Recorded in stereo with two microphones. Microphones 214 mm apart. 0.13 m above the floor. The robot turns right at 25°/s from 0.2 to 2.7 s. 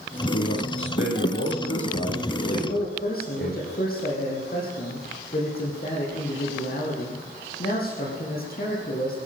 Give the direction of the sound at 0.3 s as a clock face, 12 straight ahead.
10 o'clock.